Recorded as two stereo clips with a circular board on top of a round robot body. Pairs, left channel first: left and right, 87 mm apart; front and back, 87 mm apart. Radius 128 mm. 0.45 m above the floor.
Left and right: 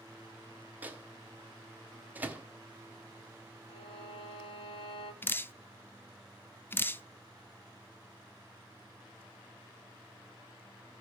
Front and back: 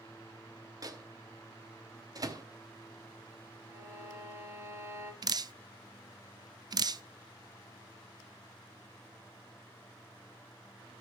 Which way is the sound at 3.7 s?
120° left.